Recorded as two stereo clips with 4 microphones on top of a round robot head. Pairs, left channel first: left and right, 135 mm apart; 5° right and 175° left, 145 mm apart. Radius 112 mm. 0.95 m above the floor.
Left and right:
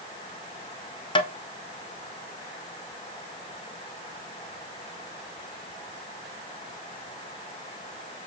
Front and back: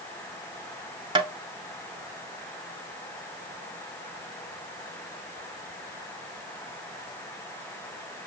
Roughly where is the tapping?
Behind left.